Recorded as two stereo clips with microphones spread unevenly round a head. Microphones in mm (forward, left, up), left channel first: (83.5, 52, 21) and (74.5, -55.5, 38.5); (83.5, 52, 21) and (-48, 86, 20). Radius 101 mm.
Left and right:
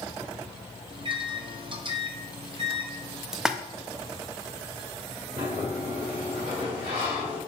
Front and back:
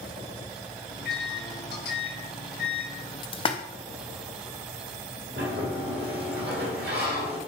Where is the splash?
Straight ahead, 0.9 m.